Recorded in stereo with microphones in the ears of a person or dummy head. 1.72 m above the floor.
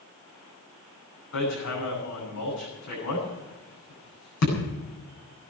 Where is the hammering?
70° left (ahead or behind), 8 m.